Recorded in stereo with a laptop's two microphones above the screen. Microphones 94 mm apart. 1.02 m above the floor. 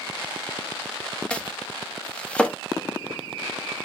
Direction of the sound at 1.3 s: 10° left (ahead or behind).